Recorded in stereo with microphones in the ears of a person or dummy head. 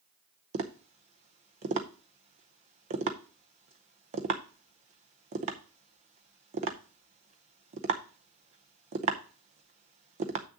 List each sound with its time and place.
0.5 s tapping: 40° right (ahead or behind), 0.6 m